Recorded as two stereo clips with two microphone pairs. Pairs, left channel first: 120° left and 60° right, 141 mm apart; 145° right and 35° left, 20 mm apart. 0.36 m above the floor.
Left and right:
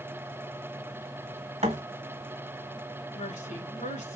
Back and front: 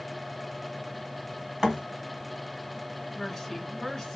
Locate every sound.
1.6 s a thud: 20° right, 1.7 m
3.1 s a woman speaking: 140° left, 2.5 m